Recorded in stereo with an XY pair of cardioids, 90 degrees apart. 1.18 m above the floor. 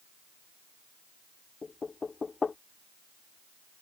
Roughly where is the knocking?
Ahead left.